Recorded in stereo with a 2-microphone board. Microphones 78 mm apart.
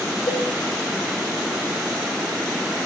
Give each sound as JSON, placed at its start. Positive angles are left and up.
{"t": 0.3, "sound": "a cowbell", "side_deg": 80, "distance_m": 6.0}